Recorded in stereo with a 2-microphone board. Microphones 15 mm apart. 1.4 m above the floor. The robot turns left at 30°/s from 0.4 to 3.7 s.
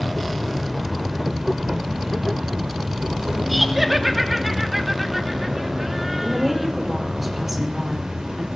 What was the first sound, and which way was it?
An insect, 10° right.